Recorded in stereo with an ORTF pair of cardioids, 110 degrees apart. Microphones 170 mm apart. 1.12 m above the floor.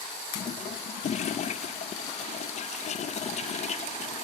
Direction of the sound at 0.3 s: 40° left.